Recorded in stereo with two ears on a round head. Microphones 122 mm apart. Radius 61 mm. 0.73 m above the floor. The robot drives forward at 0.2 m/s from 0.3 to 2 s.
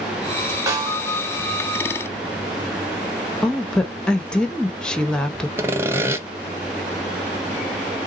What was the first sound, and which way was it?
A snare drum, 25° right (ahead or behind).